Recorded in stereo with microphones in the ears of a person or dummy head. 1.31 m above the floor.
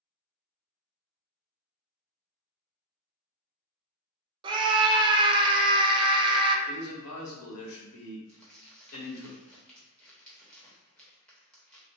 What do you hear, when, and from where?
4.4 s a scream: 25° right (ahead or behind), 0.5 m
6.7 s a man speaking: 85° left, 1.1 m
8.3 s crumpling: 5° left (ahead or behind), 0.9 m